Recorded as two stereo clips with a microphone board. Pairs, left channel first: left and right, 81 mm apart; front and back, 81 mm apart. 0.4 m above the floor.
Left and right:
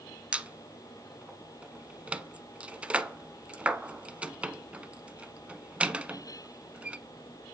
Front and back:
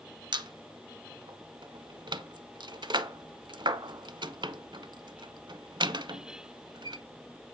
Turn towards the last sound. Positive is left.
turn(degrees=-165)